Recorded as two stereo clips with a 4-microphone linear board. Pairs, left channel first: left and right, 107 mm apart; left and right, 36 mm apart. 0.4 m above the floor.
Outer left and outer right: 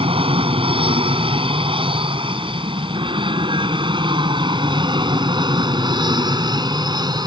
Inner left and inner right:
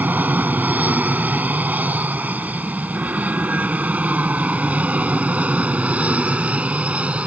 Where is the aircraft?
60° right (ahead or behind); by 7.3 s 40° right (ahead or behind).